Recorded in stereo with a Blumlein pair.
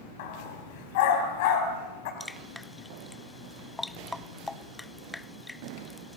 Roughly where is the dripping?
Ahead.